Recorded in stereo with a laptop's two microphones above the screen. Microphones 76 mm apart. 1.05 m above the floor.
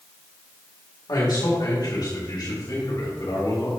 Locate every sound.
1.1 s a man speaking: 65° left (ahead or behind), 2.5 m; by 3.7 s 70° left (ahead or behind), 5 m